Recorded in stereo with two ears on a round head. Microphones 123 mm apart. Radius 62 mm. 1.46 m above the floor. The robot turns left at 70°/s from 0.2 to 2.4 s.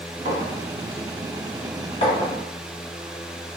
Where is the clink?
60° right (ahead or behind), 1.3 m; by 2.3 s 55° left (ahead or behind), 1.3 m.